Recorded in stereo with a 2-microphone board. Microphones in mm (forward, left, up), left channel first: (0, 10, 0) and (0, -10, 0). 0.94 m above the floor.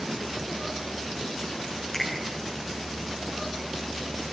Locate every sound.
1.9 s a finger snap: 20° left (ahead or behind), 9.5 m